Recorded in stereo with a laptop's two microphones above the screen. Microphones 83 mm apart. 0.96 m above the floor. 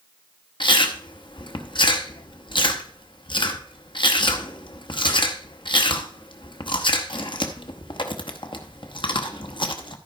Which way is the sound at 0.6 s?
75° left (ahead or behind).